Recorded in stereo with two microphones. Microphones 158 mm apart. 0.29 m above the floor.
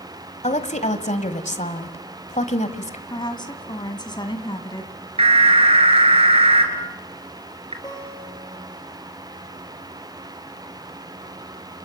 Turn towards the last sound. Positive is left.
turn(degrees=25)  # may be behind; listen again after turning